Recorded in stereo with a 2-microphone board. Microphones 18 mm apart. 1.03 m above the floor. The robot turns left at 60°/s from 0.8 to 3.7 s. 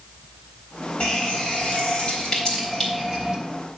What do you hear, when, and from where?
1.0 s a running tap: 120° left, 3.5 m; by 3.4 s 20° right, 3.5 m